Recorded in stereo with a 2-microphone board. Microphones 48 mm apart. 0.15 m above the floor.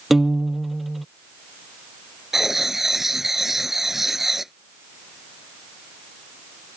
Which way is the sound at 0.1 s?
5° right (ahead or behind).